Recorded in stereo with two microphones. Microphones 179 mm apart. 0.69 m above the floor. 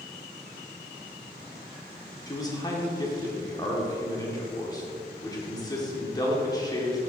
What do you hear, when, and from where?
2.3 s a man speaking: 20° left (ahead or behind), 1.3 m